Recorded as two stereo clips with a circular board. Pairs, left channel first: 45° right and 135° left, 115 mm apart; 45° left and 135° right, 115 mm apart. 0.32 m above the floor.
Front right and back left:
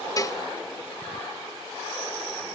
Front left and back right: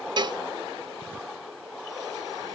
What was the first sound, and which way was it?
A cowbell, 95° right.